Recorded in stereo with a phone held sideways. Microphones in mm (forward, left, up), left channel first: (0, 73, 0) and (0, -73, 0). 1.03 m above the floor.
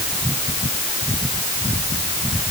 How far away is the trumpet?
I don't hear a trumpet.